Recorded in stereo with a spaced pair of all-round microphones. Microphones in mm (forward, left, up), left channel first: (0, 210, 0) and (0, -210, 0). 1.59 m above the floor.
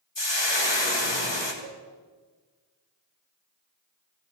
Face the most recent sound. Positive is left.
turn(degrees=20)  # may be behind; listen again after turning